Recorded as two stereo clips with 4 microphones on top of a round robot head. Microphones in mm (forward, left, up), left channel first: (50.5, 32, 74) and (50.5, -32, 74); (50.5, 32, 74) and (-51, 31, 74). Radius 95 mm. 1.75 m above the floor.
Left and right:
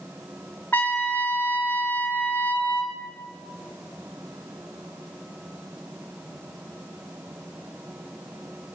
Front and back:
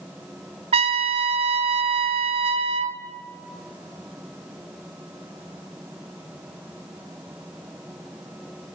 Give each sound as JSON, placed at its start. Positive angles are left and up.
{"t": 0.7, "sound": "a trumpet", "azimuth_deg": 165, "distance_m": 0.7}